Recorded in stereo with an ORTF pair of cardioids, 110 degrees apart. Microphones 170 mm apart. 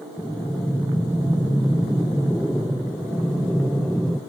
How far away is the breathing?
About 0.6 m.